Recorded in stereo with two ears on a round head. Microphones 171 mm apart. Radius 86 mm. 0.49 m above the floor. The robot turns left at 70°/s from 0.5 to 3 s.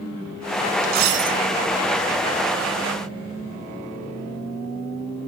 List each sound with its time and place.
0.8 s a dropped coin: 45° right, 1.0 m; by 1.4 s 85° right, 1.0 m